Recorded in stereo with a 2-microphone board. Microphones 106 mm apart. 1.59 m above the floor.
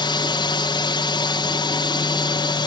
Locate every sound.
0.0 s a drone: 45° left (ahead or behind)